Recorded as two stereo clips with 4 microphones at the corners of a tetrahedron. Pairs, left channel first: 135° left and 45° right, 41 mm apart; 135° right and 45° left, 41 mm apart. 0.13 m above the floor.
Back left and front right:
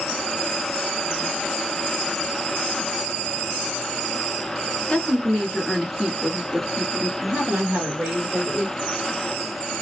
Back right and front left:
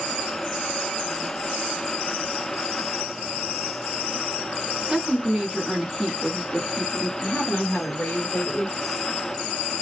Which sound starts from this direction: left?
A woman speaking, at 4.9 s.